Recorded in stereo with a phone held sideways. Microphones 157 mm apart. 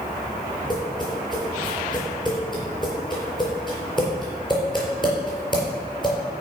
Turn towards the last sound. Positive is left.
turn(degrees=30)  # may be behind; listen again after turning